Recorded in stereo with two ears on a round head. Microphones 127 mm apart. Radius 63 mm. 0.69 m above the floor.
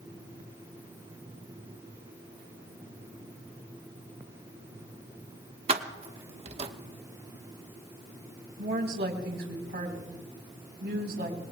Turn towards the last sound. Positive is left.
turn(degrees=-80)